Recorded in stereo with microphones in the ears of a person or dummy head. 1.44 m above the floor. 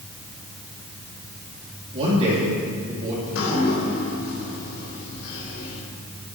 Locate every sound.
1.9 s a man speaking: 30° right (ahead or behind), 3 m
3.2 s dripping: 85° left, 4 m